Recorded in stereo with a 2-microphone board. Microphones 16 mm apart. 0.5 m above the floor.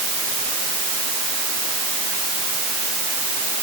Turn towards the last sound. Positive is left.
No sound to turn to.